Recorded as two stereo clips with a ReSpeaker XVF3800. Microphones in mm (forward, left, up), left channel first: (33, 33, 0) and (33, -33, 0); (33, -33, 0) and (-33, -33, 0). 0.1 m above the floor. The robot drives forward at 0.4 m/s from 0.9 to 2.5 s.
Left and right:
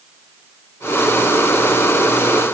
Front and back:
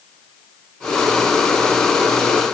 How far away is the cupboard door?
I don't hear a cupboard door.